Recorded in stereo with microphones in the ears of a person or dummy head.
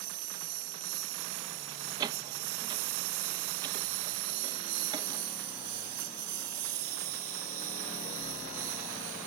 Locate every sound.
0.0 s a lawn mower: 55° right (ahead or behind); by 9.3 s 40° right (ahead or behind)
2.0 s a door slam: 20° right (ahead or behind)